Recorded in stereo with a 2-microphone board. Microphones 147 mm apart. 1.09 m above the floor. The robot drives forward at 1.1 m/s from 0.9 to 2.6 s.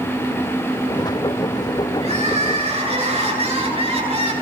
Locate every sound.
2.0 s crying: 45° right (ahead or behind), 9.5 m; by 4.3 s 40° right (ahead or behind), 10 m